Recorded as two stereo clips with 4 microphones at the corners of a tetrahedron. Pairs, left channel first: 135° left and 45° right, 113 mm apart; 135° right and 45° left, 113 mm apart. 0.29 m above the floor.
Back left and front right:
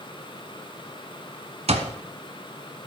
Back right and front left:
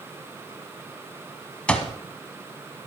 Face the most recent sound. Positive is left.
turn(degrees=-55)